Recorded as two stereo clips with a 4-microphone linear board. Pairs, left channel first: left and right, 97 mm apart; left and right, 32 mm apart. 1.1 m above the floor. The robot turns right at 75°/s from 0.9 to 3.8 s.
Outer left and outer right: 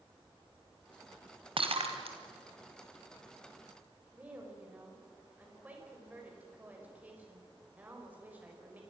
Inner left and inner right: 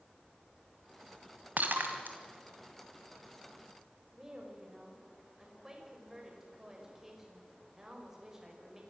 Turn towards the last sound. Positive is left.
turn(degrees=-15)  # may be behind; listen again after turning